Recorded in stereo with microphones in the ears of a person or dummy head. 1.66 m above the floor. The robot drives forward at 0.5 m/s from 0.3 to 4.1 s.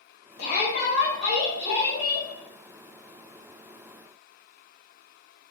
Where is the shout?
50° left (ahead or behind), 0.9 m; by 2.3 s 25° left (ahead or behind), 1.7 m.